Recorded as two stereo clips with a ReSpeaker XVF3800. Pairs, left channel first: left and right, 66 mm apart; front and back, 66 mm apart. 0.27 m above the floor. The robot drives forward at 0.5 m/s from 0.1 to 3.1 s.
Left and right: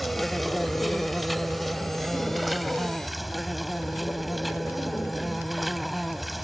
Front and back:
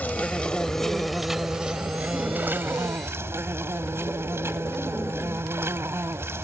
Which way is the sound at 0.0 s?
Straight ahead.